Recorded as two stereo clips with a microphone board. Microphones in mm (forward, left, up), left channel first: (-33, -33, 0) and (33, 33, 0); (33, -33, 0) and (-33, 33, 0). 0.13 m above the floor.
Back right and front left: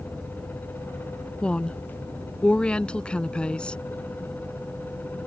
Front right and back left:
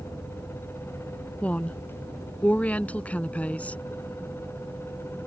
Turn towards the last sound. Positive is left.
turn(degrees=-80)